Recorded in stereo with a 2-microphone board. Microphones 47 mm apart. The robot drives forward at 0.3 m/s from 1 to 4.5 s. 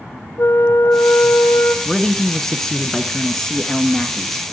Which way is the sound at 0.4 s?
70° left (ahead or behind).